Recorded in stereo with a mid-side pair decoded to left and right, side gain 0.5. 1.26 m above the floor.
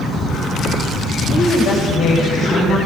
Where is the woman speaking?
70° left, 6 m.